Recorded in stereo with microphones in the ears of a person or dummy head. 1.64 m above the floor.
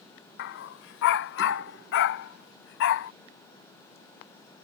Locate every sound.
0.4 s a dog barking: 55° left (ahead or behind); by 3.1 s 65° left (ahead or behind)